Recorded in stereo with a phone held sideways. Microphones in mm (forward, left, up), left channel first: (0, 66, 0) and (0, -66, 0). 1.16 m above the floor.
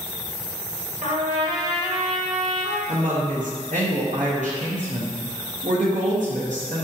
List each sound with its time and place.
1.0 s a trumpet: 65° right (ahead or behind), 1.3 m
2.9 s a woman speaking: 70° right (ahead or behind), 0.9 m